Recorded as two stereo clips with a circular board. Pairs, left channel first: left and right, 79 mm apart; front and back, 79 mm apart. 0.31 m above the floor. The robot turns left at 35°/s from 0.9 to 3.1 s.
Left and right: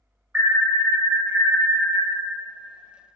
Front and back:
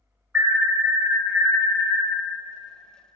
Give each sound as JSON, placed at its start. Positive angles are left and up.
{"t": 0.3, "sound": "an alarm", "azimuth_deg": -120, "distance_m": 0.9}